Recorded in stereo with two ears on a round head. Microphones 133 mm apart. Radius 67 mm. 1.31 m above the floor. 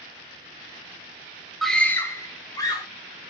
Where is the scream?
Centre (ahead or behind), 0.5 m; by 2.9 s 25° left (ahead or behind), 1.6 m.